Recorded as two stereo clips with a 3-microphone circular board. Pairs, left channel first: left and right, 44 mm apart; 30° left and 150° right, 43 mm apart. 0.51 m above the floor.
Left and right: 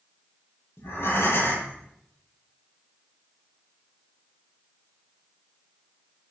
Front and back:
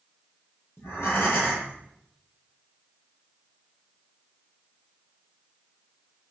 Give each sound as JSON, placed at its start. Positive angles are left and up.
{"t": 0.8, "sound": "breathing", "azimuth_deg": 60, "distance_m": 9.0}